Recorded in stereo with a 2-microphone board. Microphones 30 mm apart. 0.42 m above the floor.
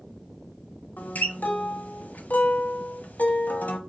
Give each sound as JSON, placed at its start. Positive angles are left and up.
{"t": 1.0, "sound": "a guitar", "side_deg": 70, "distance_m": 0.8}